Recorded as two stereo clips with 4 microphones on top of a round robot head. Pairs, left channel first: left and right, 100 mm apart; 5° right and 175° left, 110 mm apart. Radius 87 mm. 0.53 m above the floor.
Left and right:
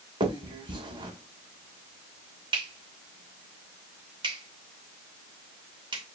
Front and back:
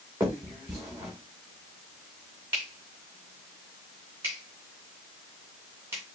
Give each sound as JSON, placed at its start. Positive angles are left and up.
{"t": 0.2, "sound": "a finger snap", "azimuth_deg": -110, "distance_m": 2.5}